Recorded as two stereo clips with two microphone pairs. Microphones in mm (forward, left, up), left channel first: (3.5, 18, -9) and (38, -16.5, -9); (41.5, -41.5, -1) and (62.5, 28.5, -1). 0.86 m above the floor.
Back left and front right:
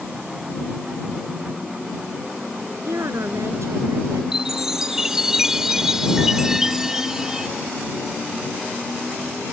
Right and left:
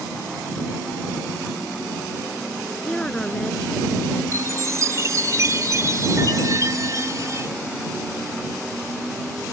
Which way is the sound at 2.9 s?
30° right.